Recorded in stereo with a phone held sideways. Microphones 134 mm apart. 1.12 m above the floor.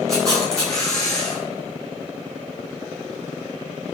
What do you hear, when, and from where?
0.1 s a camera shutter: 25° right (ahead or behind), 8.5 m